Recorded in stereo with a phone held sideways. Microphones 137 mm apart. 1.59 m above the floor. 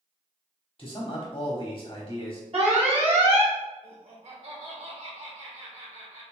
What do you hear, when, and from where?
0.8 s a man speaking: 45° left (ahead or behind), 1.0 m
2.5 s an alarm: 45° right (ahead or behind), 1.6 m
3.8 s laughter: 50° right (ahead or behind), 2 m